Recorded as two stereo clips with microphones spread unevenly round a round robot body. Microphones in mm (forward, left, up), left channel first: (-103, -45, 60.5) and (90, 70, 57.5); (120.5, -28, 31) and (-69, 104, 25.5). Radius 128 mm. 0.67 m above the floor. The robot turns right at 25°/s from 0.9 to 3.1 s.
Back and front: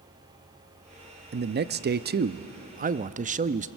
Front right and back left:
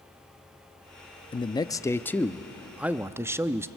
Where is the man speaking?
25° left, 0.6 m; by 3.7 s 70° left, 0.6 m.